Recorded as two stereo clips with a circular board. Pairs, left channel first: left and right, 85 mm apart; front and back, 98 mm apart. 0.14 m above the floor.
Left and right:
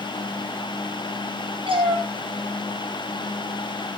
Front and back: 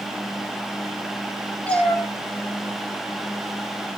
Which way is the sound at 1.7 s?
80° right.